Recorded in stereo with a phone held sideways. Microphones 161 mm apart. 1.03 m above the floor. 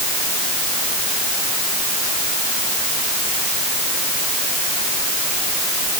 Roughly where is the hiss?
I don't hear a hiss.